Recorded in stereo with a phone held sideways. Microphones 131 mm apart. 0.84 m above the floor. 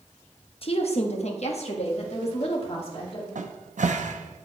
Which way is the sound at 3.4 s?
70° right (ahead or behind).